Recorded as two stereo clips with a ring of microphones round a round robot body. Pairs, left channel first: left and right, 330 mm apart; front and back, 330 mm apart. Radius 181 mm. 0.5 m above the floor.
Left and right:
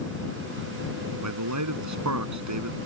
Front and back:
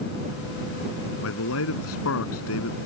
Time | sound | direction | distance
1.2 | a man speaking | 55° right | ?